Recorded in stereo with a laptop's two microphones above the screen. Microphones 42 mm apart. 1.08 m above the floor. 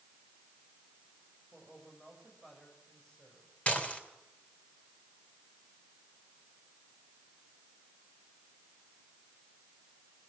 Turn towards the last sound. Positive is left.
turn(degrees=35)  # may be behind; listen again after turning